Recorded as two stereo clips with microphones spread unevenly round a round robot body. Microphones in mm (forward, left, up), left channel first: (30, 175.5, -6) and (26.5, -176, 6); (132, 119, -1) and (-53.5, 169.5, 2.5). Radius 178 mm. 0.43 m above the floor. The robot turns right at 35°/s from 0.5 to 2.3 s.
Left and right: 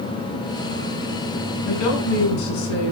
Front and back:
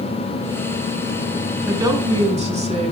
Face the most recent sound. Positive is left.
turn(degrees=110)